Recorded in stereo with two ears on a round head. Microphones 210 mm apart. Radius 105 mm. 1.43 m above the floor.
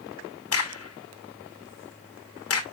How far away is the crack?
About 1.5 m.